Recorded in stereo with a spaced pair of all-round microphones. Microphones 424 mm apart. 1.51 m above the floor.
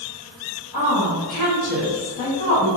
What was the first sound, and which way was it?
A woman speaking, 60° left (ahead or behind).